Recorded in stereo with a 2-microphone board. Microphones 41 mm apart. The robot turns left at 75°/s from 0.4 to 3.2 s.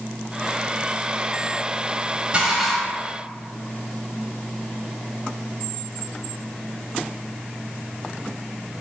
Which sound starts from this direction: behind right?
Dishes clattering, at 2.3 s.